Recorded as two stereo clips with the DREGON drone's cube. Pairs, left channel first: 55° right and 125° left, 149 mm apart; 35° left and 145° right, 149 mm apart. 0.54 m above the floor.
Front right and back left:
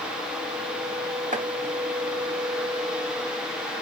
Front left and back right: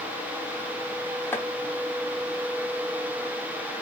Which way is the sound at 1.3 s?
110° left.